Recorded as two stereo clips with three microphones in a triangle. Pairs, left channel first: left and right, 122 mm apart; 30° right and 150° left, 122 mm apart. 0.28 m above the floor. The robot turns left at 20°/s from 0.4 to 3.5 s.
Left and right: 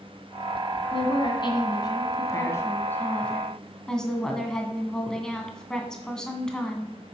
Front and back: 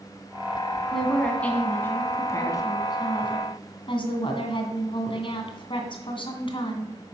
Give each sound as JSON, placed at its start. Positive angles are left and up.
{"t": 0.9, "sound": "a woman speaking", "azimuth_deg": 60, "distance_m": 1.9}